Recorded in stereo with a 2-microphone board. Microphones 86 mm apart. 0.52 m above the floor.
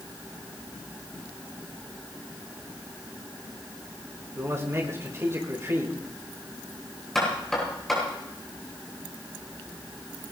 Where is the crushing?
I don't hear crushing.